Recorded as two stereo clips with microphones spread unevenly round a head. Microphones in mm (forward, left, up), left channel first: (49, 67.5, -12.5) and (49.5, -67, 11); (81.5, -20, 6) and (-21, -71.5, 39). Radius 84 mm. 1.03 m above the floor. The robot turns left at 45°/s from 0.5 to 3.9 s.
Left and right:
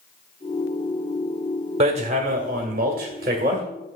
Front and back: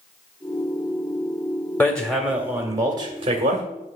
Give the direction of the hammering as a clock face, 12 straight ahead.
2 o'clock.